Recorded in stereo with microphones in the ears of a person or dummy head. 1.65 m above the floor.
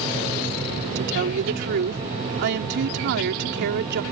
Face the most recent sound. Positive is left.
turn(degrees=-55)  # may be behind; listen again after turning